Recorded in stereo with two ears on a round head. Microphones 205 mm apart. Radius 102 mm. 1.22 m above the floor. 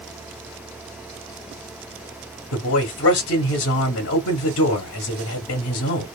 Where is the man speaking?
55° left (ahead or behind), 0.9 m.